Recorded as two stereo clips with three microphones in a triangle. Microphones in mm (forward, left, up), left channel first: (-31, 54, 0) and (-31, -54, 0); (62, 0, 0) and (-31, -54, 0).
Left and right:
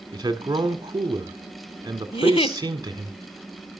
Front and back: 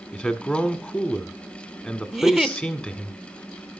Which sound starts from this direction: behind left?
A giggle, at 2.1 s.